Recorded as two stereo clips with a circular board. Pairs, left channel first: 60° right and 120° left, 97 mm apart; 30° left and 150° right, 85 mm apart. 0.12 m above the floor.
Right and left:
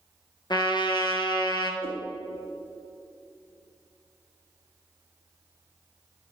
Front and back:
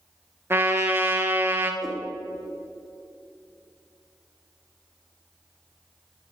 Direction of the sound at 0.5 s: 90° right.